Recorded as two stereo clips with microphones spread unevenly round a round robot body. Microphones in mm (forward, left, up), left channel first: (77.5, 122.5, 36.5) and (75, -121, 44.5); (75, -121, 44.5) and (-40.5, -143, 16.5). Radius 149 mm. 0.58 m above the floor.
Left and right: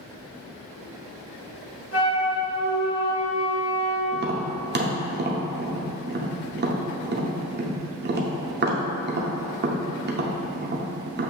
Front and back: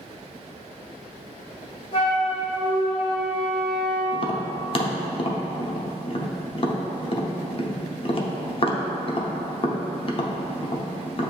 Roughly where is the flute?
Left.